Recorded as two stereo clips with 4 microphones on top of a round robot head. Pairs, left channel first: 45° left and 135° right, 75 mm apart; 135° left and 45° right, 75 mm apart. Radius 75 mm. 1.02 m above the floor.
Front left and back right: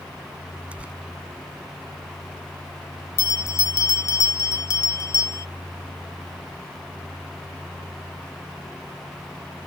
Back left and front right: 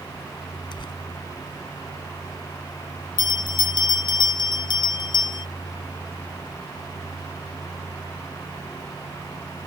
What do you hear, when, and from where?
0.7 s tearing paper: 155° left
3.2 s a bell: 100° left